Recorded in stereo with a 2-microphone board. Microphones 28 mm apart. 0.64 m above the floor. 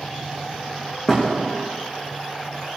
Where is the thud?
15° left (ahead or behind), 5.5 m.